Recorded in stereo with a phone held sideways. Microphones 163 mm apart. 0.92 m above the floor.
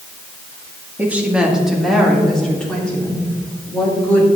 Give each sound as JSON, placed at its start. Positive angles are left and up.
{"t": 1.0, "sound": "a woman speaking", "side_deg": -10, "distance_m": 1.4}